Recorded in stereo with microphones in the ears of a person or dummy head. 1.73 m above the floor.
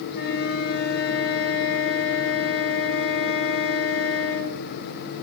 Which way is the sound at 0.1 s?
55° left (ahead or behind).